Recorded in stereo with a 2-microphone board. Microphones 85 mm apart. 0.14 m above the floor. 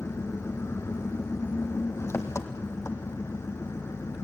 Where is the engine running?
30° left (ahead or behind), 1.4 m.